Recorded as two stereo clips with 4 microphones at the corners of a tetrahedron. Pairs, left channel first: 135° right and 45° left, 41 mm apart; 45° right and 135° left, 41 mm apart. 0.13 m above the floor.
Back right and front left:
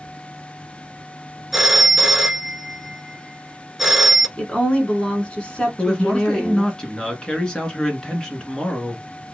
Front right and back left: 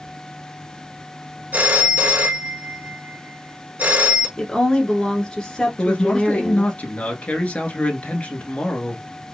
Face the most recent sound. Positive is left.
turn(degrees=-75)